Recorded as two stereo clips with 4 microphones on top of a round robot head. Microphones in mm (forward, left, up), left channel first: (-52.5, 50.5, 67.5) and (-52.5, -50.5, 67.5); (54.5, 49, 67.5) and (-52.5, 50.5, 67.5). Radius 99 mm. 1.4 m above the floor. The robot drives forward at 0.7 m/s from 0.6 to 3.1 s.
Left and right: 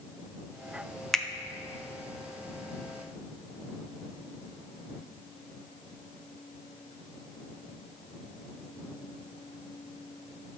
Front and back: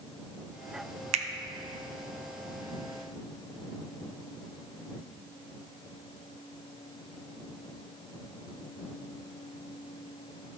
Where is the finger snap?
175° left, 0.5 m.